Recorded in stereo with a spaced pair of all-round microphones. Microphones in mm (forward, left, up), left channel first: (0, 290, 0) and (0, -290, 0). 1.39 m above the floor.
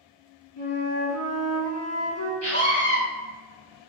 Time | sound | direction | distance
0.6 | a flute | 25° left (ahead or behind) | 0.7 m
2.4 | a scream | 25° right (ahead or behind) | 1.7 m